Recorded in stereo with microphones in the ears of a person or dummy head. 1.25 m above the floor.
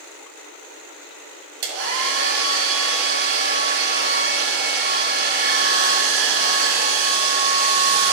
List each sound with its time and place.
1.6 s a hair dryer: 55° right (ahead or behind), 1.9 m